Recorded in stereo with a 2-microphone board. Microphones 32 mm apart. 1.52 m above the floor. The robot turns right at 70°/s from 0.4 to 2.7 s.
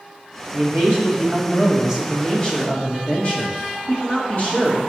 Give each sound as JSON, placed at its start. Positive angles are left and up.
{"t": 0.5, "sound": "a man speaking", "azimuth_deg": -110, "distance_m": 1.8}